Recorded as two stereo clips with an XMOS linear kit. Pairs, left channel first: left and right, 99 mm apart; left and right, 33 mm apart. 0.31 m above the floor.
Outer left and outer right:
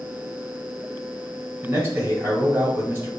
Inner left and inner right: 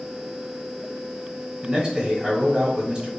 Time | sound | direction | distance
1.6 | a man speaking | 20° right (ahead or behind) | 1.0 m